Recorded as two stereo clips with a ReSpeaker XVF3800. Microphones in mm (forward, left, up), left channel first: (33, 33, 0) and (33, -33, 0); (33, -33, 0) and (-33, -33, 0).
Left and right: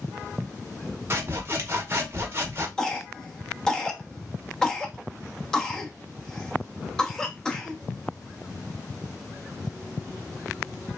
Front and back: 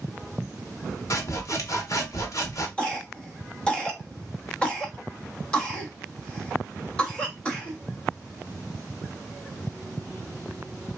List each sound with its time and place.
1.1 s sawing: 35° right, 0.7 m
2.8 s a cough: 30° left, 0.7 m